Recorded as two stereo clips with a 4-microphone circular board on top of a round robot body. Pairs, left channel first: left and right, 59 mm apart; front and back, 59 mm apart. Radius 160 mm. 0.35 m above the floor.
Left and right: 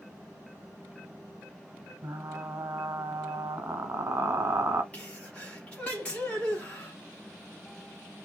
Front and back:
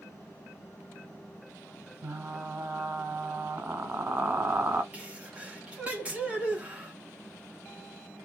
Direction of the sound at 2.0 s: 130° right.